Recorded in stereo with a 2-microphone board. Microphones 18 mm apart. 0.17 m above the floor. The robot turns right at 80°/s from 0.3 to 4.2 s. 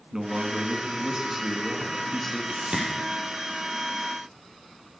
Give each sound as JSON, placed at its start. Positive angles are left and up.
{"t": 0.1, "sound": "a man speaking", "azimuth_deg": -130, "distance_m": 1.7}
{"t": 2.5, "sound": "a whoosh", "side_deg": -75, "distance_m": 4.0}